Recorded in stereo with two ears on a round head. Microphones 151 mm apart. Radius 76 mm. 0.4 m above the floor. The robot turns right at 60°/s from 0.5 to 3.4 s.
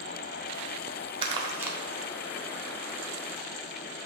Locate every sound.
1.2 s crumpling: 30° right (ahead or behind), 0.9 m; by 1.8 s 5° right (ahead or behind), 0.9 m